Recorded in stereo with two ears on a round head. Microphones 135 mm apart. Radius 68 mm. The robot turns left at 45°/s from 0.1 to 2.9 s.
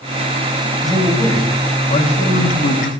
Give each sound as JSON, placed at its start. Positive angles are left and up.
{"t": 0.8, "sound": "a man speaking", "azimuth_deg": 180, "distance_m": 4.0}